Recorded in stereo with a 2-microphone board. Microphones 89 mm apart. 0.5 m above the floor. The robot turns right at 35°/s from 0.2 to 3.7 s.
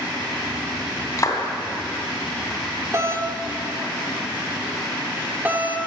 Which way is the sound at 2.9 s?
35° right (ahead or behind).